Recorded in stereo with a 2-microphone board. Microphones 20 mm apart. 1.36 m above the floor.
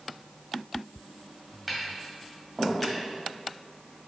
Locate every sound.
1.7 s tapping: centre (ahead or behind), 2 m